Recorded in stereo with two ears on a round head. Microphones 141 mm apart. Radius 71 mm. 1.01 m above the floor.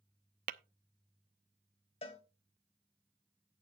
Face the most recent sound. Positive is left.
turn(degrees=35)  # may be behind; listen again after turning